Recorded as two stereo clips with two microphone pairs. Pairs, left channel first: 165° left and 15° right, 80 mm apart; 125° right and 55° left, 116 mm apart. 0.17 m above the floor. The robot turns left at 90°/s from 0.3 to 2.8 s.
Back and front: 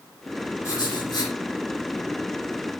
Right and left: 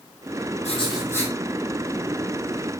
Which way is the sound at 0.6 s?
145° right.